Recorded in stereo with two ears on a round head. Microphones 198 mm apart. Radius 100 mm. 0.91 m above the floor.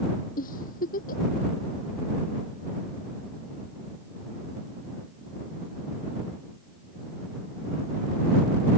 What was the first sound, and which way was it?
A giggle, 40° left (ahead or behind).